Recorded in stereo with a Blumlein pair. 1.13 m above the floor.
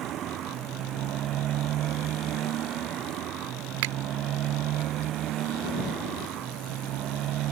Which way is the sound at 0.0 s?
30° right.